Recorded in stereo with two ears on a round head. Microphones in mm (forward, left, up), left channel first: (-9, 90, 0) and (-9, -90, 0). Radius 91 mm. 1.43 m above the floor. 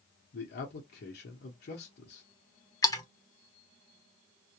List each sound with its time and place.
0.3 s a man speaking: 55° left (ahead or behind), 0.8 m
2.8 s a splash: 20° left (ahead or behind), 0.8 m